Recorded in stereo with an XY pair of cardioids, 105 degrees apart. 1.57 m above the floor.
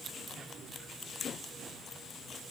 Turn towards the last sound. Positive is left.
No sound to turn to.